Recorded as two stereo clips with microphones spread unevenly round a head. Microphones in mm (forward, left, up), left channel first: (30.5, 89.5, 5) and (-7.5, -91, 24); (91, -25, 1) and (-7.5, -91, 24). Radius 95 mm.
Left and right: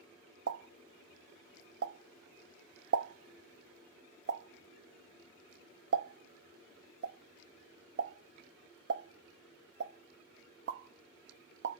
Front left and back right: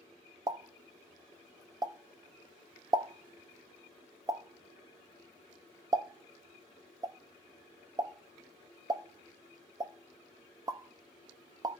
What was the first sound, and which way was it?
A pop, 80° right.